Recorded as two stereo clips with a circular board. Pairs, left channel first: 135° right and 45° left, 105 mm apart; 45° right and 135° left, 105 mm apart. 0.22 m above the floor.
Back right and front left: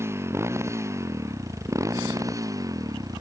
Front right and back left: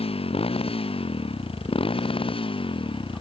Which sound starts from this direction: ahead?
A motorcycle, at 0.0 s.